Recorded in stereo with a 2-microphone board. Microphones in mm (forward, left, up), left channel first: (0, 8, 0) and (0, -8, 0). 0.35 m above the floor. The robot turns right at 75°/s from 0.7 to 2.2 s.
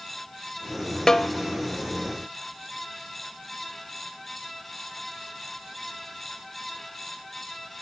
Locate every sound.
1.1 s a snare drum: 40° left (ahead or behind), 0.6 m; by 1.3 s 50° left (ahead or behind), 0.6 m